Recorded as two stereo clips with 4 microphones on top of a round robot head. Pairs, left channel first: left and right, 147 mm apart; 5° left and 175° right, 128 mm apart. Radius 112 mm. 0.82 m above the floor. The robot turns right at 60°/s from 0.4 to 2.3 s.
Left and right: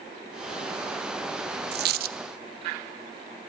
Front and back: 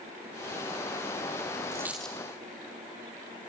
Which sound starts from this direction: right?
A dropped coin, at 1.7 s.